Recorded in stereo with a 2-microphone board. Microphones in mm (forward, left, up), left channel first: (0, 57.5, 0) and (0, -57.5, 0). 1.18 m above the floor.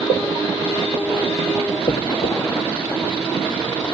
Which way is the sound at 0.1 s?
80° left.